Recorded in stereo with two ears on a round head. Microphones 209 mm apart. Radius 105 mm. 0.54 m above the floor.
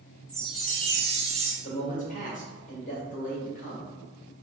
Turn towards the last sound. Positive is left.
turn(degrees=35)  # may be behind; listen again after turning